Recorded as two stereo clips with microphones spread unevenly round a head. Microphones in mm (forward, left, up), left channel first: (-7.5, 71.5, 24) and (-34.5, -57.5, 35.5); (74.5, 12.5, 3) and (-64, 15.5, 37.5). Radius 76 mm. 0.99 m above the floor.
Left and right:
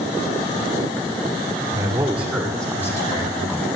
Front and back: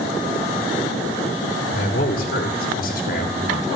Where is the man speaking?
30° right, 3 m; by 3.7 s 35° left, 2.5 m.